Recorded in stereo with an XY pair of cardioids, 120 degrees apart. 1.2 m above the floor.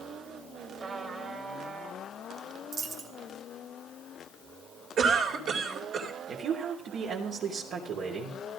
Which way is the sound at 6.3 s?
60° right.